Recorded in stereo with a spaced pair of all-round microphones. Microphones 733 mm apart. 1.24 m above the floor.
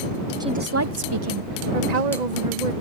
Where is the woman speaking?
5° right (ahead or behind); by 2.7 s 75° right (ahead or behind).